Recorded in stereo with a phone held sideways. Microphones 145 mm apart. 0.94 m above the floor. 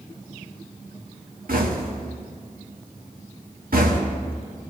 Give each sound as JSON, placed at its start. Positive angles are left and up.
{"t": 1.5, "sound": "knocking", "side_deg": -80, "distance_m": 1.2}